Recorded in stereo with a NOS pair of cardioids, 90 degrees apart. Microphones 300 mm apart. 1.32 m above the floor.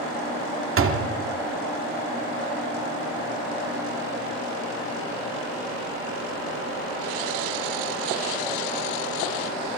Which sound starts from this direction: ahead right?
A door slam, at 0.8 s.